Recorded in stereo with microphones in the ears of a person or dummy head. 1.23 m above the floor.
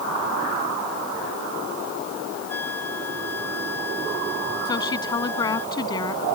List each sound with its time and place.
2.5 s a flute: 10° left (ahead or behind)
4.7 s a woman speaking: 25° left (ahead or behind)